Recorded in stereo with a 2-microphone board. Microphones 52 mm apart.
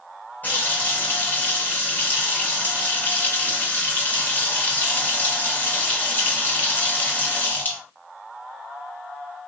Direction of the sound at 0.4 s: 35° left (ahead or behind).